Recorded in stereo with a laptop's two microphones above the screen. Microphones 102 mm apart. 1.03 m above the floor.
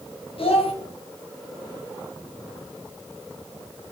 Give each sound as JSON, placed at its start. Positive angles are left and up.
{"t": 0.4, "sound": "a child speaking", "side_deg": 65, "distance_m": 1.2}